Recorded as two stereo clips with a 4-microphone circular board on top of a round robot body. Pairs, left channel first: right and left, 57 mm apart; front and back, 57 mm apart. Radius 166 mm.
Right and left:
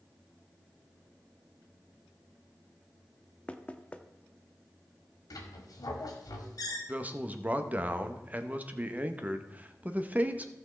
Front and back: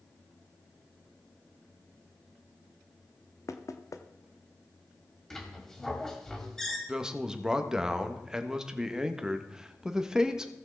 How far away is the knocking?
About 0.8 m.